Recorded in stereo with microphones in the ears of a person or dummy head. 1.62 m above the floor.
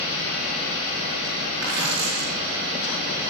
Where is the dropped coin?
55° right (ahead or behind), 7 m.